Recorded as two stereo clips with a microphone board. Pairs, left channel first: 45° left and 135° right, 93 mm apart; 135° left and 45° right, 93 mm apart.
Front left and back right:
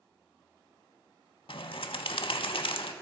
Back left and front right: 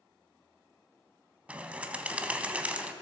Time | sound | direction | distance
1.5 | a bird | 30° left | 0.6 m